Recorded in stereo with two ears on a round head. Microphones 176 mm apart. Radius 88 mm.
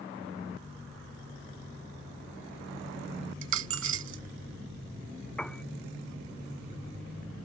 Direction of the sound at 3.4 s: 75° right (ahead or behind).